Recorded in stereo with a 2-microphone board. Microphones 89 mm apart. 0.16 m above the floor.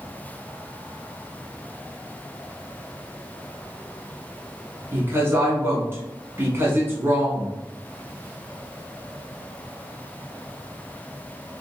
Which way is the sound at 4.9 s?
30° right (ahead or behind).